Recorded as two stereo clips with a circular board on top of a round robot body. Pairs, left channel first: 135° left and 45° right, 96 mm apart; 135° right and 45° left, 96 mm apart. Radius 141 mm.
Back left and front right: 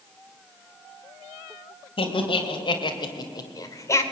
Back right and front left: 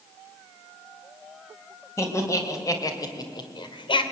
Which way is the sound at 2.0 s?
165° left.